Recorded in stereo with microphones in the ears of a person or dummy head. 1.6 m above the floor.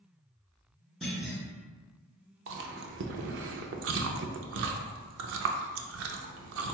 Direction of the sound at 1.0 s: 5° right (ahead or behind).